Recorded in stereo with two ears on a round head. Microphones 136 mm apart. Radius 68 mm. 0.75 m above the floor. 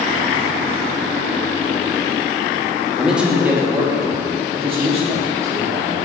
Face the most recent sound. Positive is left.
turn(degrees=-55)  # may be behind; listen again after turning